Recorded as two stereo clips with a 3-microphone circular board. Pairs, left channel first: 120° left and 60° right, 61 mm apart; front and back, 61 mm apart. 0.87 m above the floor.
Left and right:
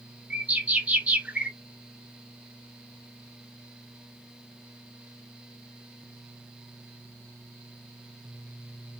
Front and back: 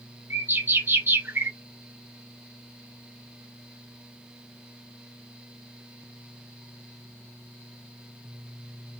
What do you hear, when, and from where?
0.3 s a bird: 125° right, 0.5 m